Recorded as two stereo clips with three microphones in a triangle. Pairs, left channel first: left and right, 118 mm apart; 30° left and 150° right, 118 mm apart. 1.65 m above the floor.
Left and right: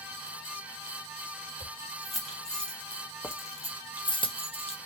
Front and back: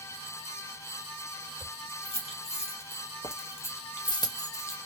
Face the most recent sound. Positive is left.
turn(degrees=90)